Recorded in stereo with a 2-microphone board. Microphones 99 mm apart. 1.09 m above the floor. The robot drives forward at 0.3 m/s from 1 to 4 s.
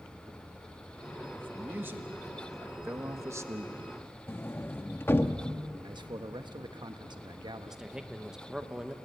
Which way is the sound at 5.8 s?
50° right (ahead or behind).